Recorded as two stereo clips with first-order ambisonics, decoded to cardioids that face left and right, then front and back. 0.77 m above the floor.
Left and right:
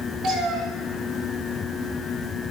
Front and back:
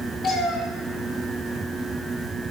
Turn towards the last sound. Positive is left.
turn(degrees=-50)